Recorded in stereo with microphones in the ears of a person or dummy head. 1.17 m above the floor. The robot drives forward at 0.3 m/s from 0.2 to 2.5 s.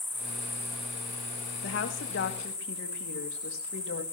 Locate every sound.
0.0 s an insect: 5° right (ahead or behind), 1.0 m
1.6 s a woman speaking: 70° left (ahead or behind), 2 m; by 4.0 s 65° left (ahead or behind), 2 m